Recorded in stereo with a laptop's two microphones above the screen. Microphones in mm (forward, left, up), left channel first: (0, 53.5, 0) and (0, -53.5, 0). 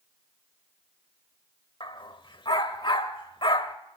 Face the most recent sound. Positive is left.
turn(degrees=50)  # may be behind; listen again after turning